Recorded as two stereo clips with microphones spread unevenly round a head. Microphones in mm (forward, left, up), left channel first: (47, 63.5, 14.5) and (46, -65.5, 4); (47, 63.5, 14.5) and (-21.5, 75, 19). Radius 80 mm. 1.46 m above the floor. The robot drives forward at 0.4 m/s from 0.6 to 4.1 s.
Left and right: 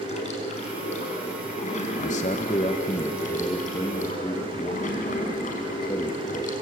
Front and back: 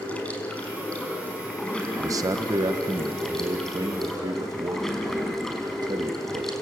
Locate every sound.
0.0 s running water: 60° left, 5.5 m; by 6.6 s 75° left, 5 m
2.0 s a man speaking: 135° left, 1.0 m; by 6.5 s 155° left, 1.7 m